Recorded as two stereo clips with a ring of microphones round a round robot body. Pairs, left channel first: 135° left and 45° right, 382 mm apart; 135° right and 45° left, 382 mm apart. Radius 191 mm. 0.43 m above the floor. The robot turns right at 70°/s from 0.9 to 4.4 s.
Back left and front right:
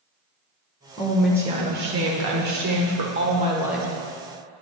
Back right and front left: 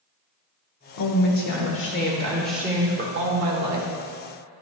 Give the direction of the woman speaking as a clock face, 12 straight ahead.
5 o'clock.